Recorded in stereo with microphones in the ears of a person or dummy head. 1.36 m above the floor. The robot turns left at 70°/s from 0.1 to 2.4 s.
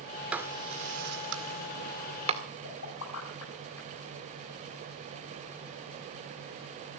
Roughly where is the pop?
Left.